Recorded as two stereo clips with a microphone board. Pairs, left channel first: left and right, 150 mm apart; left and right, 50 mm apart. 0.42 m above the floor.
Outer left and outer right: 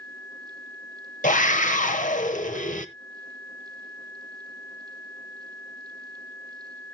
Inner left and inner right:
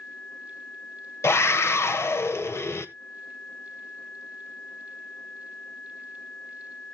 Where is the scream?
60° left (ahead or behind), 1.5 m.